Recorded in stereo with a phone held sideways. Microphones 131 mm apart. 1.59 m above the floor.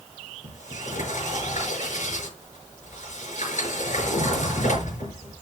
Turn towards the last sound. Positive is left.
turn(degrees=65)  # may be behind; listen again after turning